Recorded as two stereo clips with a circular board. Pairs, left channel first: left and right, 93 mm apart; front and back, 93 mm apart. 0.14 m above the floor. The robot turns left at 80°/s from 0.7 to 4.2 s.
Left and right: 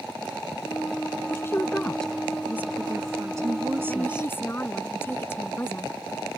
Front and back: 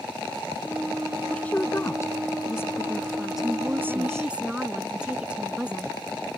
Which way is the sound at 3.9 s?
145° left.